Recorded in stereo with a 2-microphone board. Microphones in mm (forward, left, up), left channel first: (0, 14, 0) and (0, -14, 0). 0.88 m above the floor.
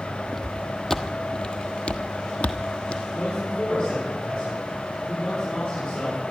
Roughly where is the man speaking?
Left.